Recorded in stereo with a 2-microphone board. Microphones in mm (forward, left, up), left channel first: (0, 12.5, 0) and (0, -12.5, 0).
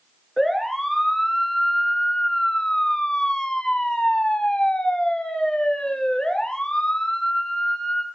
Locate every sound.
0.4 s a siren: 5° left (ahead or behind), 2.5 m; by 8.1 s 35° left (ahead or behind), 3 m